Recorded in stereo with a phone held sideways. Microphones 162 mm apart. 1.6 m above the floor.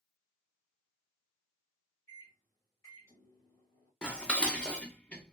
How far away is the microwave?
About 1.8 m.